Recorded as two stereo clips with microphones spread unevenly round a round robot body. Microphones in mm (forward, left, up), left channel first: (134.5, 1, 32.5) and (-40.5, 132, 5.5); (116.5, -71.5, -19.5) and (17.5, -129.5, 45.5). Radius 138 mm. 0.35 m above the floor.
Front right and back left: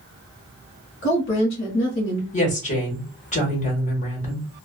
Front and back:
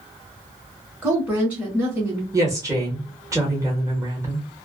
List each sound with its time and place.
1.0 s a woman speaking: 45° right, 1.4 m
2.3 s a woman speaking: 50° right, 1.3 m